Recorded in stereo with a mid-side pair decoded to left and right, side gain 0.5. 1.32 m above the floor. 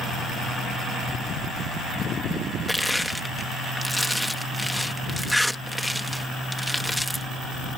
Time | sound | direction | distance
2.7 | crushing | 5° left | ?